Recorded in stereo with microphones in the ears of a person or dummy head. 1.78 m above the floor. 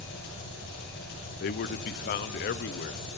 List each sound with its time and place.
0.0 s an engine running: 65° left (ahead or behind), 10 m
1.4 s a man speaking: 45° left (ahead or behind), 0.7 m